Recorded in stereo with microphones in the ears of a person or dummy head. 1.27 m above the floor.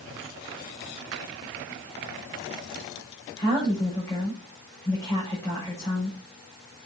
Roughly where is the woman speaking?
Centre.